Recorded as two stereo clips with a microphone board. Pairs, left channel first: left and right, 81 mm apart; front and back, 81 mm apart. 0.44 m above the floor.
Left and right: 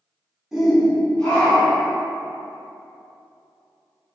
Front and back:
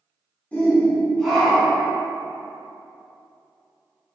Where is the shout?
20° right, 1.1 m; by 1.9 s 110° left, 1.3 m.